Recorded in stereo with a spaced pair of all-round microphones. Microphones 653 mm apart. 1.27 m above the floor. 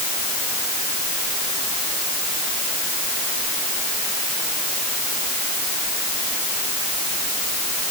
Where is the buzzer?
No buzzer in this recording.